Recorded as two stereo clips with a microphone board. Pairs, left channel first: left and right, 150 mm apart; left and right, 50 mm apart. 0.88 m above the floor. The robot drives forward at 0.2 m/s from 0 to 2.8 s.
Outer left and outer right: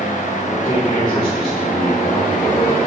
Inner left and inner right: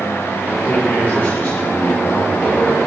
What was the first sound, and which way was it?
A man speaking, 45° left (ahead or behind).